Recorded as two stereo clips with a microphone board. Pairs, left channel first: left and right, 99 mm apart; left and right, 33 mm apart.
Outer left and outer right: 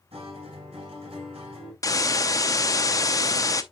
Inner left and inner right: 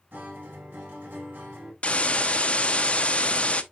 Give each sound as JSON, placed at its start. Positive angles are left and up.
{"t": 0.1, "sound": "a guitar", "side_deg": -85, "distance_m": 5.0}
{"t": 1.8, "sound": "a hiss", "side_deg": 35, "distance_m": 0.7}